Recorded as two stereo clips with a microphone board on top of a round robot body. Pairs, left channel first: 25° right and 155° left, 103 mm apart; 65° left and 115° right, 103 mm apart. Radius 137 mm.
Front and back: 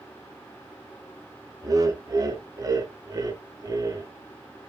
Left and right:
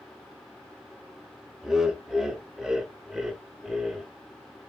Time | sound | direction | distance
1.6 | laughter | 165° left | 1.1 m